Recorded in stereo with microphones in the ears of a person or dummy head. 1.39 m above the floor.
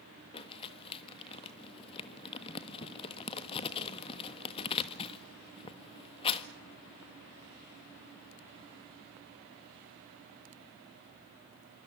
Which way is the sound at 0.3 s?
30° left (ahead or behind).